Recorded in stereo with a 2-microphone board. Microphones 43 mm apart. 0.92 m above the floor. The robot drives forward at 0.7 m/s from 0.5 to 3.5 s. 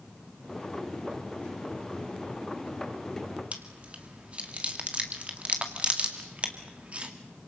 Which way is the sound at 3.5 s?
30° right (ahead or behind).